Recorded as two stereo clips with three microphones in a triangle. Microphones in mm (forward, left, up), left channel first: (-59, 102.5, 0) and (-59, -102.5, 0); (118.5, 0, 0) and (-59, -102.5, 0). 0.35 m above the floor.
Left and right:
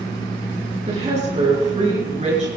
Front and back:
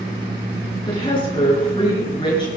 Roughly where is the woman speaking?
Ahead right.